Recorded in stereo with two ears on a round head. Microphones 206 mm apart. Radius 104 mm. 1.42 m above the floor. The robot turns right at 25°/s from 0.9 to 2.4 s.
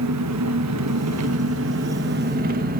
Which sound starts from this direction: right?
An engine running, at 0.0 s.